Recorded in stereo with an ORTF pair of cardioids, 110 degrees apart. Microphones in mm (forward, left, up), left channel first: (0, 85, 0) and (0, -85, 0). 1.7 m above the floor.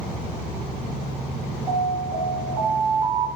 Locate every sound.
1.7 s an alarm: 65° right, 2.5 m